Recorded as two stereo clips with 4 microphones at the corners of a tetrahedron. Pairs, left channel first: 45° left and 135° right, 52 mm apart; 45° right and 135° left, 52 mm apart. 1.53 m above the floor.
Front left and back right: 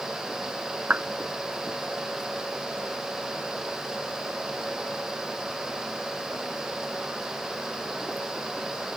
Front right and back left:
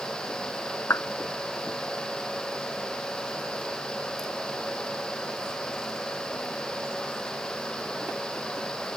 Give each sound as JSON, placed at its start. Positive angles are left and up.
{"t": 0.9, "sound": "a clap", "azimuth_deg": -80}